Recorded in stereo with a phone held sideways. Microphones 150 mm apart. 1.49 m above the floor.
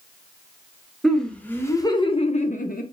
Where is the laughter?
5° left (ahead or behind), 1.0 m; by 2.8 s 75° left (ahead or behind), 0.6 m.